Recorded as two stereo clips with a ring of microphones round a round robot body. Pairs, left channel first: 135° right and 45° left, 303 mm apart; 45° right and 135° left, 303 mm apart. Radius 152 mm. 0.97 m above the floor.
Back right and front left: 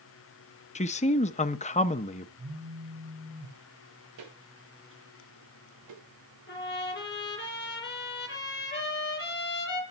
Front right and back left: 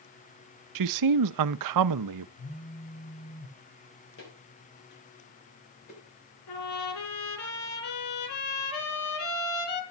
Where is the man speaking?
155° left, 0.7 m.